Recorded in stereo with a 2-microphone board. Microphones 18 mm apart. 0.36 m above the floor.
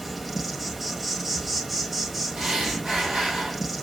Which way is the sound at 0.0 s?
10° right (ahead or behind).